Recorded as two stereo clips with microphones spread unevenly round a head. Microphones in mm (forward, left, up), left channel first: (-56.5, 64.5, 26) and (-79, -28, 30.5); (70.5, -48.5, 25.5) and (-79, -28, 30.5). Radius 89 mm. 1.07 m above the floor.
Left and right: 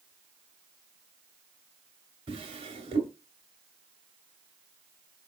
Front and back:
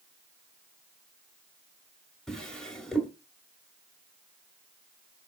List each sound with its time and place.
2.3 s a drawer: 95° right, 1.4 m